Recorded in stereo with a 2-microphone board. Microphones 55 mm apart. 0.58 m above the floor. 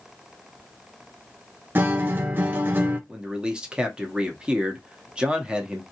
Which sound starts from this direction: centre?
A man speaking, at 3.1 s.